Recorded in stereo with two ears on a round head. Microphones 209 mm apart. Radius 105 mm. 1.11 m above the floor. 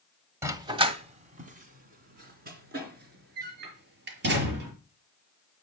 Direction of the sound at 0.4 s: 10° right (ahead or behind).